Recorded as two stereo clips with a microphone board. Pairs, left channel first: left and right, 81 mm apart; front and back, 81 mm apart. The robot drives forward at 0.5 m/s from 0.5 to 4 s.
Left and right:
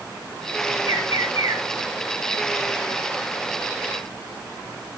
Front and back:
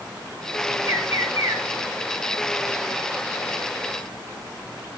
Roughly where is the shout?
I don't hear a shout.